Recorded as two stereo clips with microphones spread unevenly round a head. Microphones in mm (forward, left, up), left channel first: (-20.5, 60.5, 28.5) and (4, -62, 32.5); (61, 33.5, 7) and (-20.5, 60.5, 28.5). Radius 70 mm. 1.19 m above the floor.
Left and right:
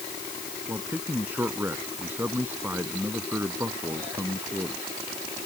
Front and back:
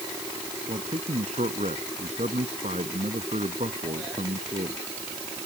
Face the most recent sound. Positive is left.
turn(degrees=-155)